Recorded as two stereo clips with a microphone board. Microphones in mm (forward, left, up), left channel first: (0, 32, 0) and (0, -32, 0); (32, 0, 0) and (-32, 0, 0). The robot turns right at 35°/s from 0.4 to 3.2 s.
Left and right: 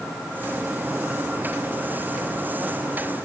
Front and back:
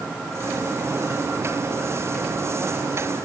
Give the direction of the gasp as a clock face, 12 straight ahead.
I don't hear a gasp.